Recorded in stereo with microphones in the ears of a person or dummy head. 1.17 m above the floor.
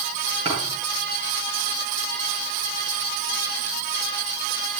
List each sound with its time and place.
0.5 s a thud: 30° right (ahead or behind), 9 m